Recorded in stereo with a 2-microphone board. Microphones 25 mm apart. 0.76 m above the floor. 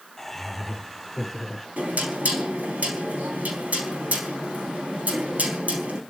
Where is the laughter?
10° left (ahead or behind), 2.5 m; by 1.7 s centre (ahead or behind), 4 m.